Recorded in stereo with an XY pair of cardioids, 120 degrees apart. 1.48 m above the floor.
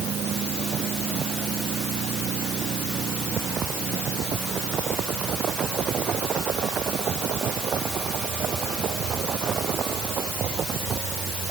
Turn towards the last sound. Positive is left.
No sound to turn to.